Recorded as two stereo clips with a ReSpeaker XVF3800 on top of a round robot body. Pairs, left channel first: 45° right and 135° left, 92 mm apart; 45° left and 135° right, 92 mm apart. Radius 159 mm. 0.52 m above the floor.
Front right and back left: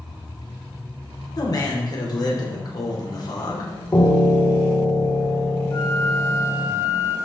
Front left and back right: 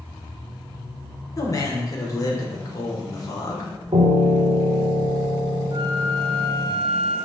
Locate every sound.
1.4 s a man speaking: 5° right, 3 m
3.9 s a piano: 110° right, 1.5 m
5.7 s a flute: 95° right, 1.7 m